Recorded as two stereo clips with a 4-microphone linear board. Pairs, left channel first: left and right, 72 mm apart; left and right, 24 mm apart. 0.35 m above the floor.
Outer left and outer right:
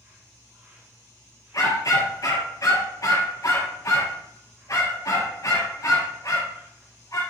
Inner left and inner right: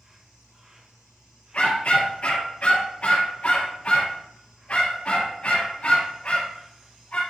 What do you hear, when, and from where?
0.0 s an insect: 35° right (ahead or behind), 2.5 m
1.5 s a dog barking: 50° left (ahead or behind), 3.5 m